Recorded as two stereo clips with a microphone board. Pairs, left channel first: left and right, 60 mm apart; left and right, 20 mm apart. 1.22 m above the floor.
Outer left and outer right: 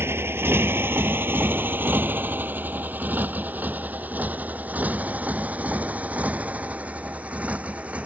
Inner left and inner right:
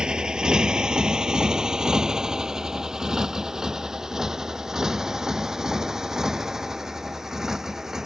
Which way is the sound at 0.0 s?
40° right (ahead or behind).